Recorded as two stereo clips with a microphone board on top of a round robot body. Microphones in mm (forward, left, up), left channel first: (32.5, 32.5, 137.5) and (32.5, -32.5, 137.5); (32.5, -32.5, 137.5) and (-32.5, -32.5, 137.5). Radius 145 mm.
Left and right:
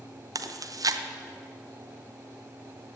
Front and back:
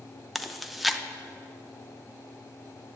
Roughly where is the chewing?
Right.